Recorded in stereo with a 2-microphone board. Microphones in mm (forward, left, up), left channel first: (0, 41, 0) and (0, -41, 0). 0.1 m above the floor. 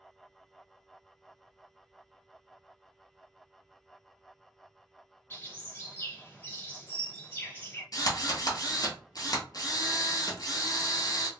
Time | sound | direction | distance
5.3 | a bird | 25° left (ahead or behind) | 1.8 m
7.9 | a drill | 50° left (ahead or behind) | 1.1 m